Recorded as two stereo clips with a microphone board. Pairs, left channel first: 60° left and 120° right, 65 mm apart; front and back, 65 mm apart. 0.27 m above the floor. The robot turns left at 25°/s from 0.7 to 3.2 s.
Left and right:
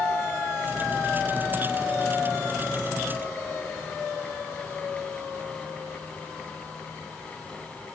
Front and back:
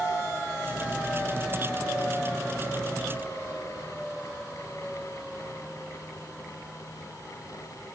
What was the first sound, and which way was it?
Only background noise.